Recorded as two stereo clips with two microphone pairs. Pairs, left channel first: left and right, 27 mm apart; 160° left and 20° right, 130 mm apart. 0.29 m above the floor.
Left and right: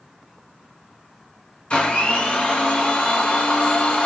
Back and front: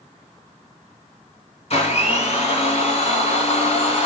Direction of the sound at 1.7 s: 125° left.